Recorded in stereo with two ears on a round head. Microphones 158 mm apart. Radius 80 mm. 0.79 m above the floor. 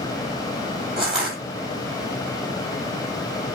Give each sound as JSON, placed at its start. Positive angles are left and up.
{"t": 1.0, "sound": "crushing", "side_deg": -5, "distance_m": 6.0}